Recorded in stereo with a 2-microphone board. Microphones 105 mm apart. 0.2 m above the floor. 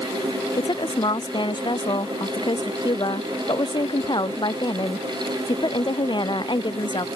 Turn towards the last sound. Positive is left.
turn(degrees=45)  # may be behind; listen again after turning